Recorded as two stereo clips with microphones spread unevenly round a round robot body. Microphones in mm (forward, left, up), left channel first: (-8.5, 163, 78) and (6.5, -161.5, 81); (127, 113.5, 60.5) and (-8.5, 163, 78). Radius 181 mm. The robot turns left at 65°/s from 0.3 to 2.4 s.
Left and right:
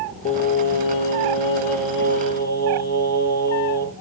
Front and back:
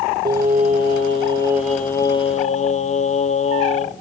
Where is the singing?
165° left, 1.2 m; by 4.0 s 25° left, 1.2 m.